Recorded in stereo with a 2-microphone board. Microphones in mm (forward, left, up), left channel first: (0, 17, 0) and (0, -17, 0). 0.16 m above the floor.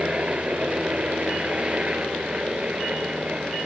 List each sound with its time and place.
0.0 s a helicopter: 35° right (ahead or behind)